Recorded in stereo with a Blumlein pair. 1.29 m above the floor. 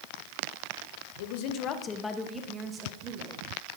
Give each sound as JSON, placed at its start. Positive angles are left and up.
{"t": 1.2, "sound": "a woman speaking", "azimuth_deg": 55, "distance_m": 1.4}